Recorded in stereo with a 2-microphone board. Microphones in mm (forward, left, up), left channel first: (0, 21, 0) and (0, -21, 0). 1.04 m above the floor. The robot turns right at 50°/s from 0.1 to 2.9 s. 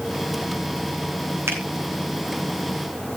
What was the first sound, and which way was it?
A finger snap, 70° right (ahead or behind).